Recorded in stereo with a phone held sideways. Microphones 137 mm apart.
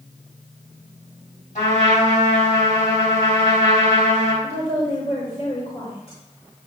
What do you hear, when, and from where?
1.6 s a trumpet: 65° left (ahead or behind), 4.5 m
4.4 s a woman speaking: 45° left (ahead or behind), 4 m